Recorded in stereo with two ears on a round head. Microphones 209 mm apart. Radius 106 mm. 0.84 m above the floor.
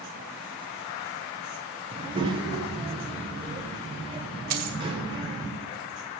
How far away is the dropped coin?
About 1.3 m.